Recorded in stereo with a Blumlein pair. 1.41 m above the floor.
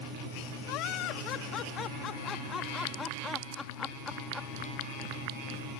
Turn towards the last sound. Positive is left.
turn(degrees=0)